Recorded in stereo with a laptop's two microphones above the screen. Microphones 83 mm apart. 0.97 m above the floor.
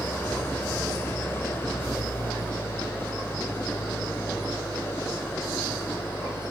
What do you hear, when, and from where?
0.0 s an engine running: 30° left (ahead or behind)